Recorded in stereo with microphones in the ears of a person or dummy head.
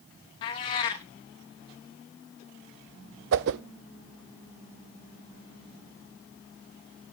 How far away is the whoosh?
About 0.6 m.